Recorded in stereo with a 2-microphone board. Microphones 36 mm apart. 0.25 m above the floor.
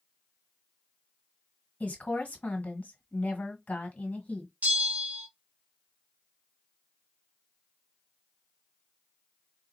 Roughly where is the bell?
Right.